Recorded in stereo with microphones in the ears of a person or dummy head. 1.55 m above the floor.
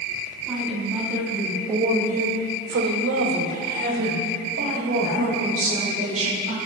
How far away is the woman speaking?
About 3.5 m.